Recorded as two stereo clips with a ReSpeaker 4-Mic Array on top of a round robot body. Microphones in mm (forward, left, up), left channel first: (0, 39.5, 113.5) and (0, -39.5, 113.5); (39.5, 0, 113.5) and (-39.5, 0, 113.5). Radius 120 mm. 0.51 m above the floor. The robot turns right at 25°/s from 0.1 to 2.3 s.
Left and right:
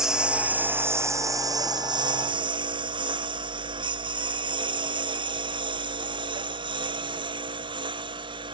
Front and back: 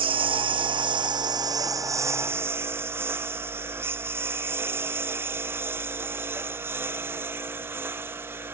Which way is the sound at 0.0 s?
175° right.